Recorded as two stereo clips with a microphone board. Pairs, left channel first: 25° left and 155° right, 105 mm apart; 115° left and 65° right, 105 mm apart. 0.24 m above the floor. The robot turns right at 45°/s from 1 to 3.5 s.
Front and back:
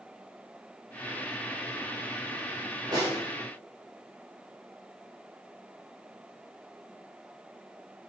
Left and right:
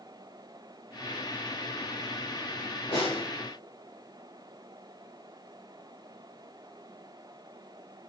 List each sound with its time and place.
2.9 s a snare drum: 155° left, 7 m; by 3.2 s 165° left, 7 m